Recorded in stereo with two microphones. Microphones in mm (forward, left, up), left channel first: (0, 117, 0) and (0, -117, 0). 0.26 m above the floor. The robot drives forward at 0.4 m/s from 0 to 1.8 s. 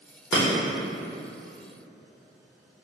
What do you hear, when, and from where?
0.3 s breaking glass: 15° left (ahead or behind), 1.8 m